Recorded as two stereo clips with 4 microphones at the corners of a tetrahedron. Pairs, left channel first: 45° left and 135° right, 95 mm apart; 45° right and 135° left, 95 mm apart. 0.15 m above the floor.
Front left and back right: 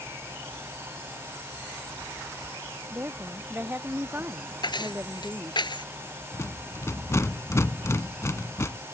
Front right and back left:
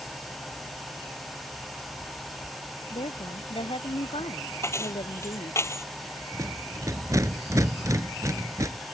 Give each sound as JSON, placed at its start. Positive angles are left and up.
{"t": 2.9, "sound": "a woman speaking", "azimuth_deg": -65}
{"t": 4.6, "sound": "keys jangling", "azimuth_deg": 15}
{"t": 6.3, "sound": "a rattle", "azimuth_deg": 95}